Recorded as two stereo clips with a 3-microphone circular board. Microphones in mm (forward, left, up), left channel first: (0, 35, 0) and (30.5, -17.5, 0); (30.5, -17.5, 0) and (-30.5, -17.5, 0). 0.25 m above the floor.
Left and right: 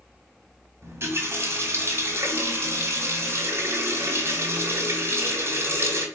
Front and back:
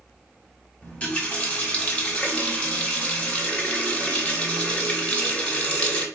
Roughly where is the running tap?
Ahead right.